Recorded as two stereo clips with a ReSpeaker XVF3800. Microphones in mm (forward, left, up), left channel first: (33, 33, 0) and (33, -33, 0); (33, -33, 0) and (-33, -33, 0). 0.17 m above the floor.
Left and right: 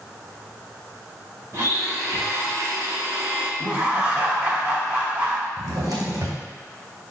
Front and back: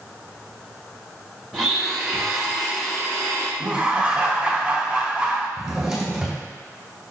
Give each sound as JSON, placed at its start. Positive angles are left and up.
{"t": 1.5, "sound": "a blender", "azimuth_deg": -80, "distance_m": 1.4}
{"t": 3.6, "sound": "laughter", "azimuth_deg": -130, "distance_m": 1.1}
{"t": 5.6, "sound": "a drawer", "azimuth_deg": -100, "distance_m": 1.7}